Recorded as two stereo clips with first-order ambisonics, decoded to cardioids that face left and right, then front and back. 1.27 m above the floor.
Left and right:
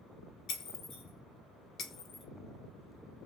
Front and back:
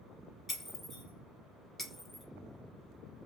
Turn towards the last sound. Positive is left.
turn(degrees=80)